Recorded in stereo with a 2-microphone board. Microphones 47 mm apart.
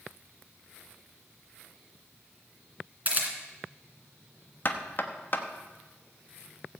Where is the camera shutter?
35° right (ahead or behind), 2 m.